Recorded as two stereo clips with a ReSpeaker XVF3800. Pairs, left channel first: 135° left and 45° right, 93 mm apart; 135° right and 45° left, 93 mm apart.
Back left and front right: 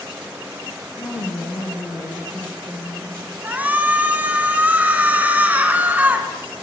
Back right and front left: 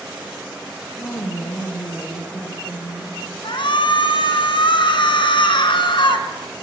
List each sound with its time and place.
1.0 s a woman speaking: 175° left, 5.5 m
3.4 s a shout: 115° right, 3.5 m